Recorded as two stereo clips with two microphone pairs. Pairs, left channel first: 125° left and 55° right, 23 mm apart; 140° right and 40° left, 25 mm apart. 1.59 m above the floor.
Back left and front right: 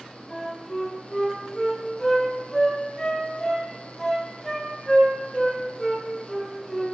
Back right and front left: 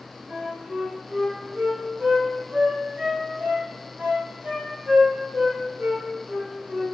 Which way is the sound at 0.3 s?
45° left.